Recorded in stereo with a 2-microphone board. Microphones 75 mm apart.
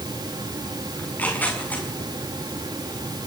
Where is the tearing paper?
20° left (ahead or behind), 6.5 m.